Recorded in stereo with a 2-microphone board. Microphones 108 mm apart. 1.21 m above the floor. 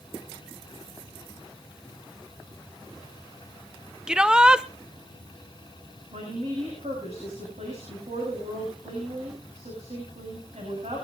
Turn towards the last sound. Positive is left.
turn(degrees=-85)